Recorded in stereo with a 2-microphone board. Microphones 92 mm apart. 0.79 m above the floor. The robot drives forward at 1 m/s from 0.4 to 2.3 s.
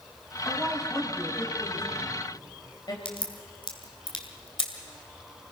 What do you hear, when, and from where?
0.5 s a woman speaking: 30° left (ahead or behind), 5.5 m; by 3.0 s 45° left (ahead or behind), 4 m
3.0 s a crack: 65° left (ahead or behind), 2 m